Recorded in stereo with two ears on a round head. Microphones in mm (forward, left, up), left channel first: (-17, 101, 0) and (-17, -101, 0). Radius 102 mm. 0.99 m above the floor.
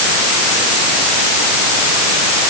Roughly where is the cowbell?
No cowbell in this recording.